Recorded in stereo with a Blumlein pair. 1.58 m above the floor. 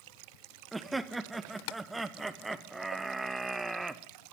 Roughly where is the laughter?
Ahead.